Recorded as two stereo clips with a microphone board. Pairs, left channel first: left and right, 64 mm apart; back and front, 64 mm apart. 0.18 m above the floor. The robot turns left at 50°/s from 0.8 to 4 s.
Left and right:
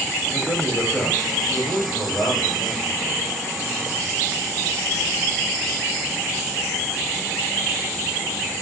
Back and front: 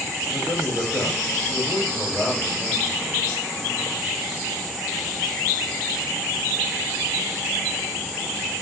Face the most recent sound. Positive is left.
turn(degrees=5)